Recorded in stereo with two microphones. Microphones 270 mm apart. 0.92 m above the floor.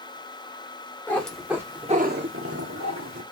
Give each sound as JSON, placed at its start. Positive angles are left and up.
{"t": 1.1, "sound": "a cat meowing", "side_deg": 10, "distance_m": 1.5}